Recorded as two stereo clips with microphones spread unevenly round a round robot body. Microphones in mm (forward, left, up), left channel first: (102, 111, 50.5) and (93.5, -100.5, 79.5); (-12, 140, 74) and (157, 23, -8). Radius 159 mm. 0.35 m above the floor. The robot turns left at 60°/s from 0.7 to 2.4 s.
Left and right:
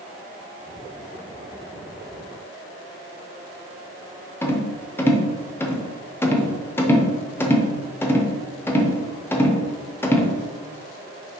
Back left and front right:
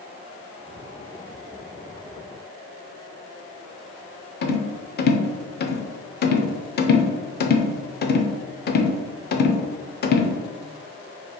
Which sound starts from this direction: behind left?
A rattle, at 4.4 s.